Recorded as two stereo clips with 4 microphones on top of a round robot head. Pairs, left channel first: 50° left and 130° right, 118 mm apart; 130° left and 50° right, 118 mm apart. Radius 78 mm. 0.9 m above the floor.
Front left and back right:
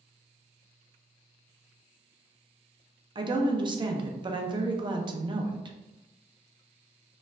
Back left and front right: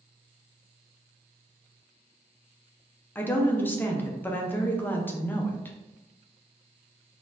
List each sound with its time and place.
3.1 s a woman speaking: 160° right, 0.6 m